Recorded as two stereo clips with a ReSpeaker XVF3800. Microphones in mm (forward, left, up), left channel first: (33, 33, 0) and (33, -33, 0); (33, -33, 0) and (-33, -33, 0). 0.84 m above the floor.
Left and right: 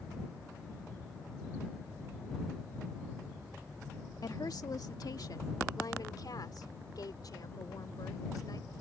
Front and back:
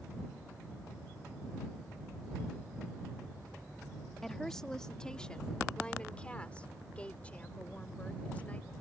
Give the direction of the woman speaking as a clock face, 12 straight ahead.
9 o'clock.